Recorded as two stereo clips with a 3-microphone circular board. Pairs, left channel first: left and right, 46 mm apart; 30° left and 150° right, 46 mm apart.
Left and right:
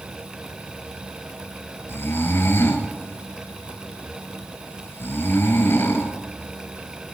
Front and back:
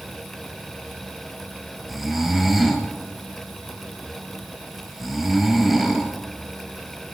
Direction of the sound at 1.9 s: 120° left.